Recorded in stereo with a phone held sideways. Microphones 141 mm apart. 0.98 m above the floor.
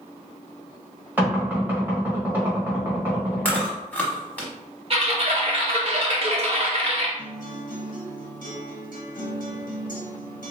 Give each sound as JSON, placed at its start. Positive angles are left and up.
{"t": 1.2, "sound": "knocking", "side_deg": -15, "distance_m": 1.4}
{"t": 3.5, "sound": "chewing", "side_deg": 10, "distance_m": 1.1}
{"t": 4.9, "sound": "typing on a keyboard", "side_deg": -45, "distance_m": 0.9}
{"t": 7.2, "sound": "a guitar", "side_deg": 70, "distance_m": 1.0}